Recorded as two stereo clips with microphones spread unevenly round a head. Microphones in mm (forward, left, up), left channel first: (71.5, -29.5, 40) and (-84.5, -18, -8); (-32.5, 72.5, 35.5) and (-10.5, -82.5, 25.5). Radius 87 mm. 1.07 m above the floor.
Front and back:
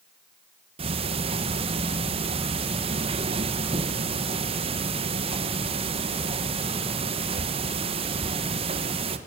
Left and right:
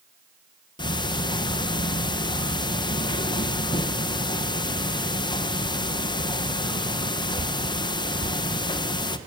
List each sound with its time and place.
0.8 s ticking: 155° left, 1.1 m